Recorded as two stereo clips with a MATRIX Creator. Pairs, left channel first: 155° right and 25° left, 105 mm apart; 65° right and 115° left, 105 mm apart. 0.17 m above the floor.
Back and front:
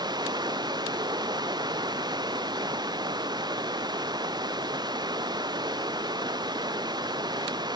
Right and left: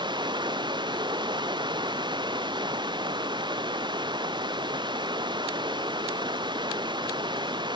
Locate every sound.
0.0 s running water: 70° left